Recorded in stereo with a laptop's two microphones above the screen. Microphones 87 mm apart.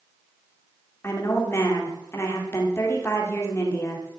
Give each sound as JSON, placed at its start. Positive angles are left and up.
{"t": 1.0, "sound": "a woman speaking", "side_deg": 30, "distance_m": 2.0}